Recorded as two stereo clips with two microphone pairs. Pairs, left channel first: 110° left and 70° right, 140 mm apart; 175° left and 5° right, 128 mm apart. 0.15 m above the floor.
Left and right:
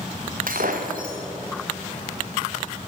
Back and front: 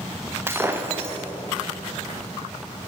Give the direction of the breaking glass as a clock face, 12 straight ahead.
3 o'clock.